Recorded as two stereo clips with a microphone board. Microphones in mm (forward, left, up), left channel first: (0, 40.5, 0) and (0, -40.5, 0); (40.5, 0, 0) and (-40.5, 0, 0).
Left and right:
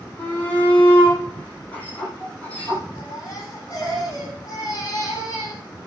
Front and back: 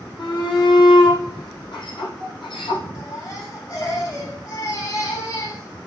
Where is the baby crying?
45° left, 8 m.